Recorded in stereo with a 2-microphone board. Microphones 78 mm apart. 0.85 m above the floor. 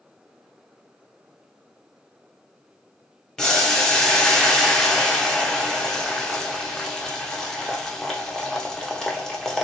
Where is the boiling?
10° left (ahead or behind), 0.7 m.